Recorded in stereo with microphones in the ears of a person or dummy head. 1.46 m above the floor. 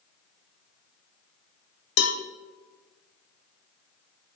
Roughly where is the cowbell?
Left.